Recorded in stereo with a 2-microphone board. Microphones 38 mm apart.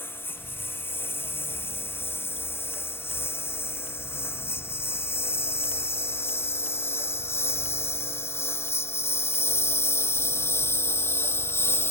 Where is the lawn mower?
65° left (ahead or behind); by 11.9 s 75° left (ahead or behind).